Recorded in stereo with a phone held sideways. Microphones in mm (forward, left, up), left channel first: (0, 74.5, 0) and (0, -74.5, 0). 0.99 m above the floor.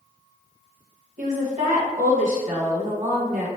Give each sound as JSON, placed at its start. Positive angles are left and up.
{"t": 1.2, "sound": "a woman speaking", "side_deg": -55, "distance_m": 0.8}